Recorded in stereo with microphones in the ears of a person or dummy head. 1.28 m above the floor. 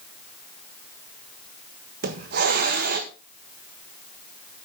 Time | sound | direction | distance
2.0 | a hiss | 55° right (ahead or behind) | 1.3 m